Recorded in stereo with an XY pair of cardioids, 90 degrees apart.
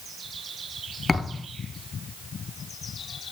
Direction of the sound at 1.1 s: 25° left.